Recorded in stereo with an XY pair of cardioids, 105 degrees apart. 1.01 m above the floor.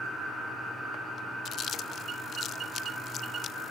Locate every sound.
1.4 s chewing: 60° left, 0.9 m